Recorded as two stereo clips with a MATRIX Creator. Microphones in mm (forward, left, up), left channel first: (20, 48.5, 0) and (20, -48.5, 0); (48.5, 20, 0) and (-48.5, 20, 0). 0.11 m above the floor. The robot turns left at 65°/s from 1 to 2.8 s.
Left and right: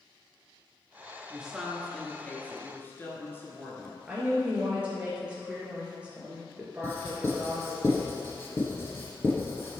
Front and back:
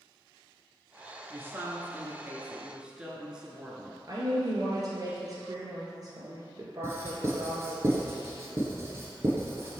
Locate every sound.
1.3 s a woman speaking: 150° right, 1.1 m; by 4.0 s 115° left, 1.1 m
4.1 s a woman speaking: 160° right, 1.6 m
6.8 s writing: 140° left, 1.8 m